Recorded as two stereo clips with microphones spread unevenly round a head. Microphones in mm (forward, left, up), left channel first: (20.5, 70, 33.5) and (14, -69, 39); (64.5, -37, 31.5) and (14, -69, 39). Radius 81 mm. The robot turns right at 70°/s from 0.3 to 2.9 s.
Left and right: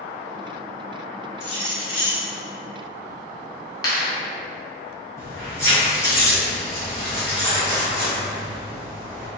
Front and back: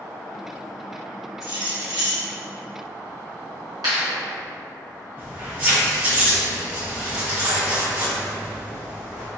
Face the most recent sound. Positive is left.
turn(degrees=155)